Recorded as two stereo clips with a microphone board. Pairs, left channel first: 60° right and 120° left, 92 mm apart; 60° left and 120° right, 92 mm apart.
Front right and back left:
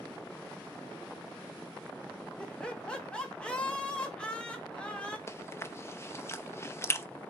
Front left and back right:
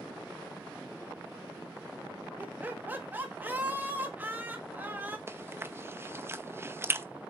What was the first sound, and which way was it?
Laughter, 120° right.